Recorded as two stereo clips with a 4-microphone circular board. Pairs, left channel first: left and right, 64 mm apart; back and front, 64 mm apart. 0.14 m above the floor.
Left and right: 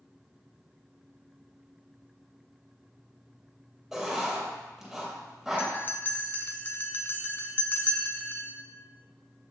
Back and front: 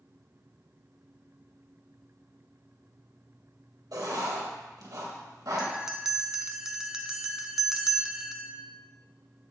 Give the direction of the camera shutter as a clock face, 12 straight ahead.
I don't hear a camera shutter.